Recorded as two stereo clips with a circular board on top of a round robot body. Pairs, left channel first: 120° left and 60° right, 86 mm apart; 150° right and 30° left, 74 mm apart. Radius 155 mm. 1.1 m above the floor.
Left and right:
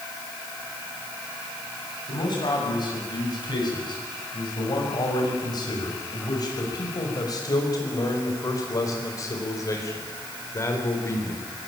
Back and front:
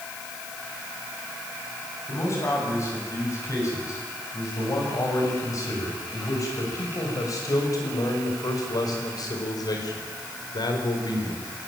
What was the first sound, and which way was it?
A man speaking, 155° left.